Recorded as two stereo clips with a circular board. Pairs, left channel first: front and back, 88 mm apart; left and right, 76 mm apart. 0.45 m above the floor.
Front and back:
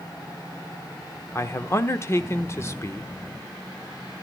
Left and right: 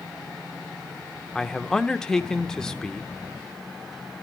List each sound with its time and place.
1.4 s a man speaking: 10° left, 0.8 m